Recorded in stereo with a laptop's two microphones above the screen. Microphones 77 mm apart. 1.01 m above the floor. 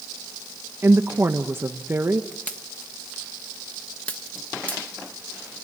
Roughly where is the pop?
Centre.